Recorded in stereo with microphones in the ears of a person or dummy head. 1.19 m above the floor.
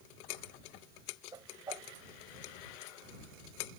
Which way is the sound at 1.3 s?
20° right (ahead or behind).